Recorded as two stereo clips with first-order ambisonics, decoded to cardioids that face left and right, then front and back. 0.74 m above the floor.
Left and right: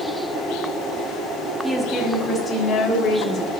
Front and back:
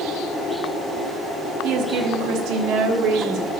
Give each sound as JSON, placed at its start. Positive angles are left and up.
{"t": 1.6, "sound": "a woman speaking", "azimuth_deg": -175, "distance_m": 0.8}